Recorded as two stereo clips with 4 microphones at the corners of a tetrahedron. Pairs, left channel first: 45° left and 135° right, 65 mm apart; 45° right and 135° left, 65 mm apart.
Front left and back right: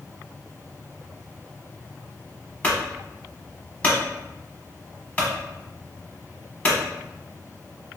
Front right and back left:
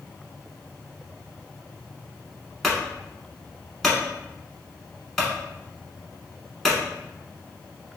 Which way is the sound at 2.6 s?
40° left.